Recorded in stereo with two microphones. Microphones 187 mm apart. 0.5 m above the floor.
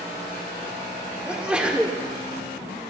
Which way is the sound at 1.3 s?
5° right (ahead or behind).